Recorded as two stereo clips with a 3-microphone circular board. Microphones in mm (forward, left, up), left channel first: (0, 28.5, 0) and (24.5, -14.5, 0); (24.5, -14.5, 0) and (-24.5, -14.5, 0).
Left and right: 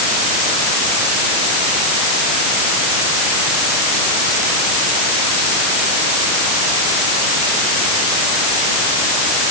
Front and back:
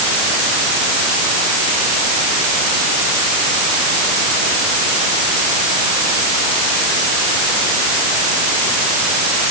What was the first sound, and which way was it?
Only background noise.